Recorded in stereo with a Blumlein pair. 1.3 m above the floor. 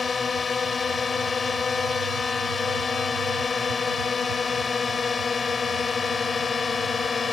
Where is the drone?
15° left.